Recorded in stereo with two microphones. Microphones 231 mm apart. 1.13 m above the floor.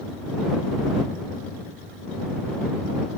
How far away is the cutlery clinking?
I don't hear cutlery clinking.